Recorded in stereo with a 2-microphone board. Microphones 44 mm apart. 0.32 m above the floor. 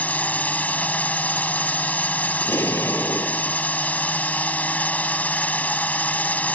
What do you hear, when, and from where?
0.0 s a drone: 35° left (ahead or behind)
2.4 s an explosion: 70° left (ahead or behind)